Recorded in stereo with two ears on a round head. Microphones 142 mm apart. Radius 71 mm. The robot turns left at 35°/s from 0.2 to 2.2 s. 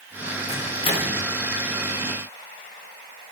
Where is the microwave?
50° left (ahead or behind), 3 m; by 1.2 s 25° left (ahead or behind), 3 m.